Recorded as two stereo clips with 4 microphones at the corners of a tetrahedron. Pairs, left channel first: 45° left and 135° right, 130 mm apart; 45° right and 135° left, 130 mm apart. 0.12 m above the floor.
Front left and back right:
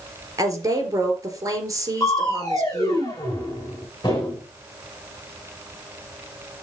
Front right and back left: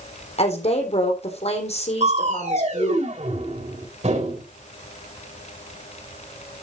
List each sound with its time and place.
0.4 s a woman speaking: 75° right, 3.5 m
2.0 s crushing: 105° left, 4.5 m